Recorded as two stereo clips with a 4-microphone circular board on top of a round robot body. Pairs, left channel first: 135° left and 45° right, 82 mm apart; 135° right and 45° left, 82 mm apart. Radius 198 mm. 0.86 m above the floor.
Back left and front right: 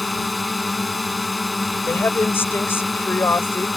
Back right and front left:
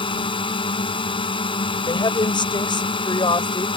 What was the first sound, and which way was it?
A drone, 135° right.